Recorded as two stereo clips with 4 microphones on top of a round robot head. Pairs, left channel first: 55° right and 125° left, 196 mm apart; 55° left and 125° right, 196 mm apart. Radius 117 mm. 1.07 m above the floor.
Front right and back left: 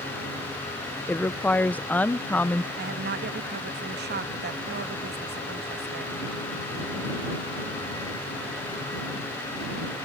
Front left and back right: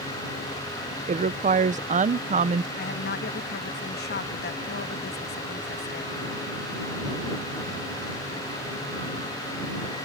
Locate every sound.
1.1 s a woman speaking: 130° right
2.8 s a woman speaking: 90° left